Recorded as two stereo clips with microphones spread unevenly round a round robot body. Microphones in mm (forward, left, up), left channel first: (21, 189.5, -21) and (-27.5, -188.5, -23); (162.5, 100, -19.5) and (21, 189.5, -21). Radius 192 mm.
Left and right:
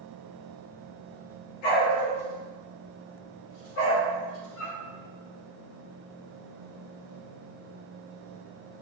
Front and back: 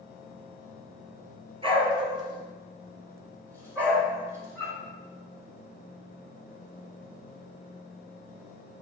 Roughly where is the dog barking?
Left.